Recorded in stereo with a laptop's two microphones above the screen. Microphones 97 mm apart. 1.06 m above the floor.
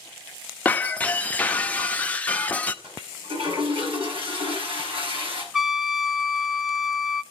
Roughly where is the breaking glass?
Centre.